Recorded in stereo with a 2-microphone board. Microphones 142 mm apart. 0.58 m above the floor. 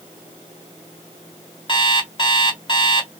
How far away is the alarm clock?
About 1.3 m.